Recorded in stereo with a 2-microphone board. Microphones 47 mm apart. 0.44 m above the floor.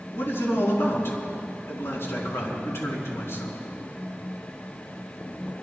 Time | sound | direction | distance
0.1 | a man speaking | 65° left (ahead or behind) | 5 m